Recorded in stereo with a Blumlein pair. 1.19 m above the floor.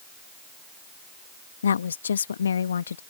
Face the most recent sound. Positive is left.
turn(degrees=70)